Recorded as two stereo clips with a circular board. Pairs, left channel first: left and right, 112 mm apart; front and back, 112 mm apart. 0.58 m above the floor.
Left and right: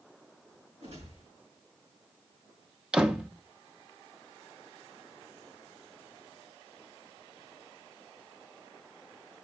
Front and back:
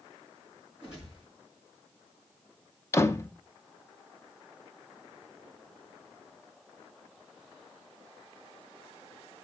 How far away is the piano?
I don't hear a piano.